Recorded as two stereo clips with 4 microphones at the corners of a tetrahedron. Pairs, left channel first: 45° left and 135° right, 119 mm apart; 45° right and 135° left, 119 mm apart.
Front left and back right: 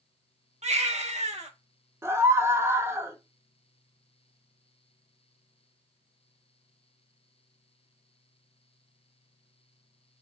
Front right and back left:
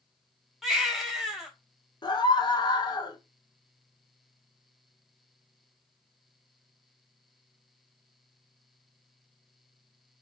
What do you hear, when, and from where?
0.6 s a baby crying: 135° right, 0.8 m
2.0 s a scream: 75° right, 0.7 m